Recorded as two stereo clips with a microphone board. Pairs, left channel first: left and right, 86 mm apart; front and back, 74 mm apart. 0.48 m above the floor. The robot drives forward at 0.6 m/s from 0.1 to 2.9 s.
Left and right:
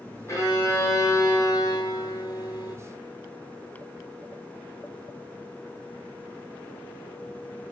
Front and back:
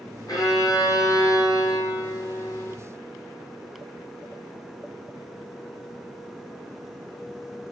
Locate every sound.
0.3 s a violin: 35° left, 3 m; by 2.8 s 55° left, 2 m